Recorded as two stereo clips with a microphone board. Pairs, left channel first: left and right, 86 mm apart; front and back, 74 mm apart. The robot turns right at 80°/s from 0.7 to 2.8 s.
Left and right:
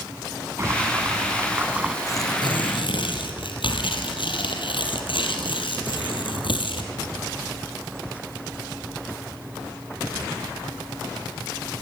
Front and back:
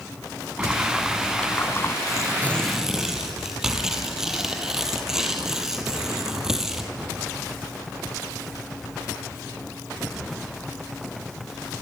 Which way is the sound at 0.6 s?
115° right.